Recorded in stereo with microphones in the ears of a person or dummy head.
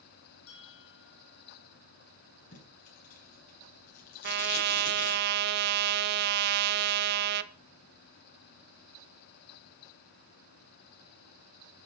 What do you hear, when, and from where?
0.5 s a bell: 80° left, 4.5 m
2.5 s tape being pulled: 50° left (ahead or behind), 6 m
4.2 s a trumpet: 55° right (ahead or behind), 0.8 m